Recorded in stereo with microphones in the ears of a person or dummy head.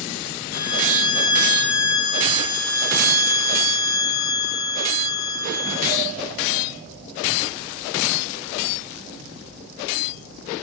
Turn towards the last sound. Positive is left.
turn(degrees=55)  # may be behind; listen again after turning